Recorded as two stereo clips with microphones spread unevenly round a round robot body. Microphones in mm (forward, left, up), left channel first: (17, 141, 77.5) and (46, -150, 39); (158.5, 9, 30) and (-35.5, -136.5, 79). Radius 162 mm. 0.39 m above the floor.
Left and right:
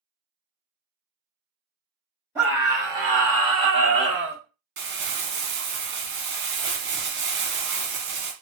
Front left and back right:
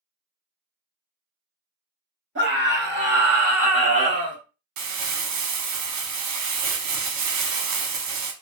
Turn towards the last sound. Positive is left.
turn(degrees=-140)